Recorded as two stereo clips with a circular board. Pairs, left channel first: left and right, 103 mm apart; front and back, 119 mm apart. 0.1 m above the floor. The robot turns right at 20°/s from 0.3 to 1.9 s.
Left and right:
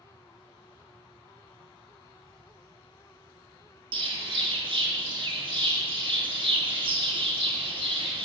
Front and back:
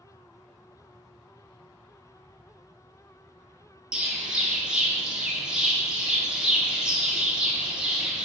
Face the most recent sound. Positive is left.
turn(degrees=-95)